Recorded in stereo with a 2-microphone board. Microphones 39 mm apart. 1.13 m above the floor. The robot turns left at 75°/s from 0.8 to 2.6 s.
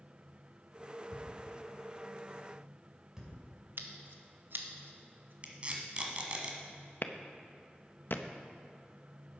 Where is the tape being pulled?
35° right (ahead or behind), 1.6 m.